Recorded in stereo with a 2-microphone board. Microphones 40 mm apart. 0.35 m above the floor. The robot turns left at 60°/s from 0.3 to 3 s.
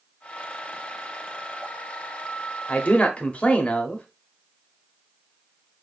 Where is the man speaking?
35° left (ahead or behind), 1.0 m.